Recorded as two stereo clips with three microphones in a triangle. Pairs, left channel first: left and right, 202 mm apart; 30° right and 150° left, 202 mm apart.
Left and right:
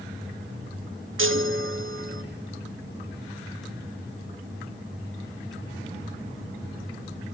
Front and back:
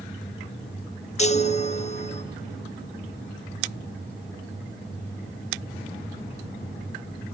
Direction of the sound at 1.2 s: 90° right.